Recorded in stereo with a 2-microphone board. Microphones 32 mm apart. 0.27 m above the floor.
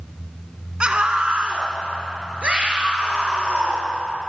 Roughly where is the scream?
Right.